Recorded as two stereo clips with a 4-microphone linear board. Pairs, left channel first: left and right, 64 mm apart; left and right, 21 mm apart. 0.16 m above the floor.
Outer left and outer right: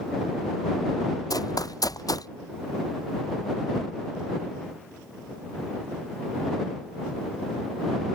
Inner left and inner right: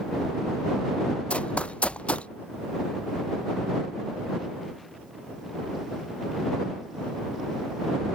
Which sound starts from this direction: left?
Running footsteps, at 1.3 s.